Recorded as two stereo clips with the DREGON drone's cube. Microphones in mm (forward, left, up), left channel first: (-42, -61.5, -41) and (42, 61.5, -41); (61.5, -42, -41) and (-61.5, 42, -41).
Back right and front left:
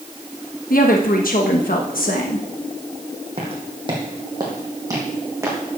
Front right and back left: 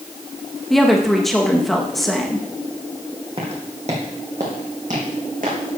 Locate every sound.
0.7 s a woman speaking: 125° right, 1.0 m
3.4 s footsteps: 100° left, 2.5 m; by 5.8 s 125° left, 3.5 m